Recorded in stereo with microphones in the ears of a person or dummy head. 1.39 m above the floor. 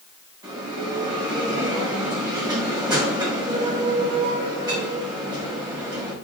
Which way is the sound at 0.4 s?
20° right (ahead or behind).